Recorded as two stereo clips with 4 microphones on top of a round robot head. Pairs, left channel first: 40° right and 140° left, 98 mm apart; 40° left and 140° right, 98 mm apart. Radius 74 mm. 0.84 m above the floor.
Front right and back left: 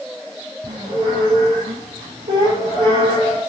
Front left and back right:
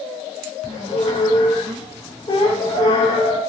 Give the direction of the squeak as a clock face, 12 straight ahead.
9 o'clock.